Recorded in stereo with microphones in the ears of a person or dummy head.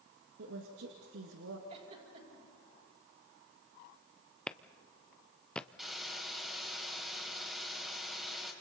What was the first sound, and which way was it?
A woman speaking, 75° right (ahead or behind).